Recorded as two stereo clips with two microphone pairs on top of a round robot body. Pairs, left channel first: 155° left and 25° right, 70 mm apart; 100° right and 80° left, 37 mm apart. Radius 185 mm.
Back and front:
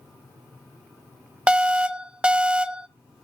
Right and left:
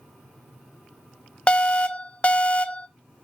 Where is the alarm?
110° right, 1.0 m.